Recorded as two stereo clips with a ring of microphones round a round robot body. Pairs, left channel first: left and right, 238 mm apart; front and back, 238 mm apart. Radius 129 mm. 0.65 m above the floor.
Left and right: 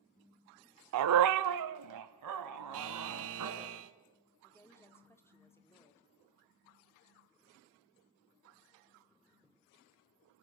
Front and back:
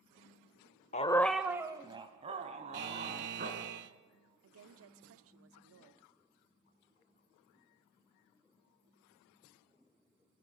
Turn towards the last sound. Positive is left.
turn(degrees=170)